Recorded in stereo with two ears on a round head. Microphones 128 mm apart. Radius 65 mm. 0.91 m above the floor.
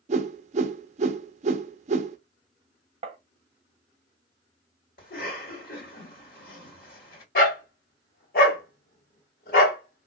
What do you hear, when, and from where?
0.1 s a whoosh: 50° right (ahead or behind), 0.5 m
3.0 s tapping: 40° right (ahead or behind), 0.7 m
5.0 s a cough: 75° left (ahead or behind), 1.8 m
7.3 s a dog barking: 65° left (ahead or behind), 1.5 m